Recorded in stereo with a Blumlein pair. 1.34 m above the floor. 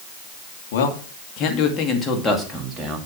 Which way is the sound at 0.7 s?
55° left.